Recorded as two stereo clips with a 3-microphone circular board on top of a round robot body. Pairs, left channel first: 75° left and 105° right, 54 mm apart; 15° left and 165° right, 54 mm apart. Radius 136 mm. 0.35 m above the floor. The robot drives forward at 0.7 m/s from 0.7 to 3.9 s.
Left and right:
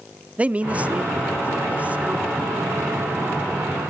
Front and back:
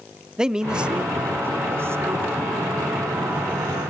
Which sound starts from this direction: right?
A man speaking, at 0.4 s.